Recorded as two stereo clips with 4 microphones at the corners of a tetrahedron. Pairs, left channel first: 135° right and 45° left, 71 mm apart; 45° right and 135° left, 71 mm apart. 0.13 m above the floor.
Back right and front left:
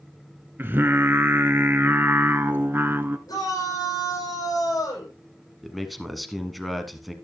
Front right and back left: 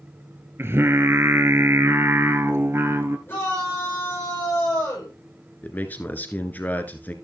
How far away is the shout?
About 9 m.